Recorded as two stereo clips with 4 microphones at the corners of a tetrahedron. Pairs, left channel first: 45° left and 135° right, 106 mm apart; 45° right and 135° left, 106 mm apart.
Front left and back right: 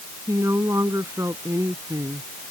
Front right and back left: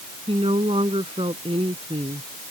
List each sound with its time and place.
0.3 s a woman speaking: 160° left